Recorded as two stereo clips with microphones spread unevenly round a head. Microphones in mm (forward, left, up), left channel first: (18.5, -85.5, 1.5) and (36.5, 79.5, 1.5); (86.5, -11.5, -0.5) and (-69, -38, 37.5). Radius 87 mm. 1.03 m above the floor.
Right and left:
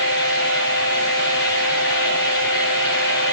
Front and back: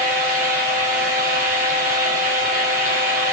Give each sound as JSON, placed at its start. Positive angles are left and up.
{"t": 0.0, "sound": "a fan", "azimuth_deg": -135, "distance_m": 8.5}